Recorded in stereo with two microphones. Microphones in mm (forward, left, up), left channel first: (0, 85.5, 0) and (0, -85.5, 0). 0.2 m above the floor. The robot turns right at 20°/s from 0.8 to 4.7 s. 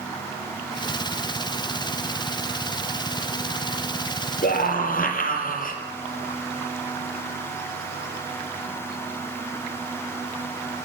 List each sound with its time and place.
4.4 s a scream: 60° left (ahead or behind), 4.5 m; by 5.8 s 55° left (ahead or behind), 4.5 m